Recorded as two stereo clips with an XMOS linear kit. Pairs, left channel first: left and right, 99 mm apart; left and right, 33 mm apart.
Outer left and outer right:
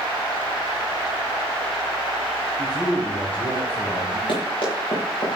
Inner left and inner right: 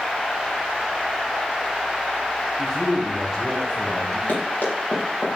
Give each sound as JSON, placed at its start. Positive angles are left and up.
{"t": 2.6, "sound": "a man speaking", "side_deg": 15, "distance_m": 3.0}
{"t": 4.3, "sound": "running footsteps", "side_deg": 55, "distance_m": 7.0}